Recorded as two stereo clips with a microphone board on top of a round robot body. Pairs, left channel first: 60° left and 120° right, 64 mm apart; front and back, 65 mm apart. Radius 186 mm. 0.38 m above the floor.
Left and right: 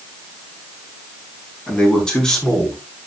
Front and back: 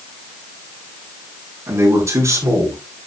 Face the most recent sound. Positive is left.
turn(degrees=140)